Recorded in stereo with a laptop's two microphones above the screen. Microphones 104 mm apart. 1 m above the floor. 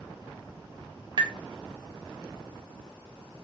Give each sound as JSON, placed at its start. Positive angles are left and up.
{"t": 1.2, "sound": "tapping", "side_deg": -50, "distance_m": 0.6}